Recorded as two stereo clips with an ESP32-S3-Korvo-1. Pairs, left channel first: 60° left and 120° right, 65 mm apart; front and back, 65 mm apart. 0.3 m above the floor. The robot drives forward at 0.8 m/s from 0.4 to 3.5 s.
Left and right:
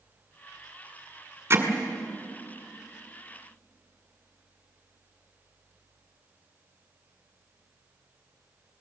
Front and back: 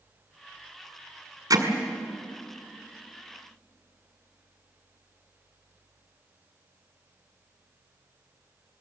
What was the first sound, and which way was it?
Hammering, 170° right.